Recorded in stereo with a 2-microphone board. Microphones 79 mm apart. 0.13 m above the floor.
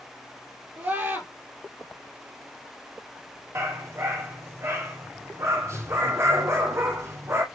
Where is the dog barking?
35° right (ahead or behind), 2.5 m.